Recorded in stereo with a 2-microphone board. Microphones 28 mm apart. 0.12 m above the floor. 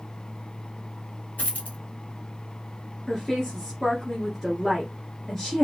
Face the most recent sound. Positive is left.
turn(degrees=5)  # may be behind; listen again after turning